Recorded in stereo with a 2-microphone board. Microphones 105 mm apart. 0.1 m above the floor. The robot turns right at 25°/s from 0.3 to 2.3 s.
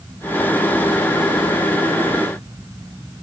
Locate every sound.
Only background noise.